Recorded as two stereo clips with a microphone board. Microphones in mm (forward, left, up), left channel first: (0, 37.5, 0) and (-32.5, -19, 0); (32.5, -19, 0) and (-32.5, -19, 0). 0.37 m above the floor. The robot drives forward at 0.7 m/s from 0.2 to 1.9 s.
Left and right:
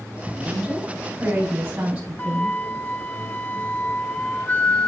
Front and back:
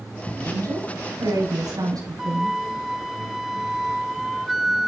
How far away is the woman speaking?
About 5 m.